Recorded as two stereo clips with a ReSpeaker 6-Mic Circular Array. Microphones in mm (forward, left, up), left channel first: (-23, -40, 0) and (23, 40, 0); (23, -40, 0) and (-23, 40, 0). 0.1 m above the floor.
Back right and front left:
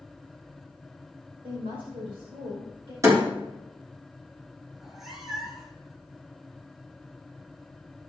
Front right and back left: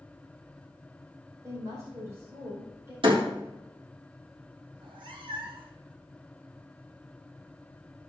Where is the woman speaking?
60° left, 5.5 m.